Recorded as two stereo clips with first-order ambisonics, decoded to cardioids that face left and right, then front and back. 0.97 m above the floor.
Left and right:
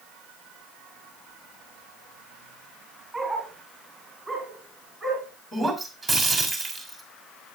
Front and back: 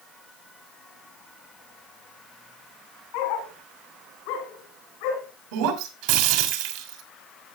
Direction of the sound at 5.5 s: 175° right.